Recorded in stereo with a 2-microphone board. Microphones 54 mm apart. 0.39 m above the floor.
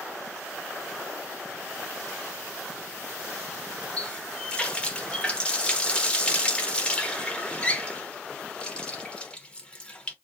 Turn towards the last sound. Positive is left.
turn(degrees=20)  # may be behind; listen again after turning